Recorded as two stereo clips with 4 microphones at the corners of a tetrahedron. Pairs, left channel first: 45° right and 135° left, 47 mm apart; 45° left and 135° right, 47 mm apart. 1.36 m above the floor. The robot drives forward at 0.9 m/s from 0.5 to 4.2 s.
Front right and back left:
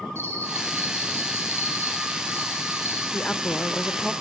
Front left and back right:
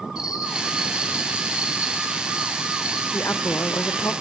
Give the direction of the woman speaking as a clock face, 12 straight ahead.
11 o'clock.